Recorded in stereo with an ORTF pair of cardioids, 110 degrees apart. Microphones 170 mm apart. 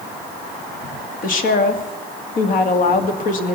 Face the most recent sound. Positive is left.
turn(degrees=55)